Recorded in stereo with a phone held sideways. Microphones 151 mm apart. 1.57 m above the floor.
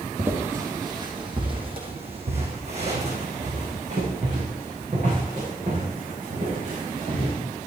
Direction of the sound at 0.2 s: 15° right (ahead or behind).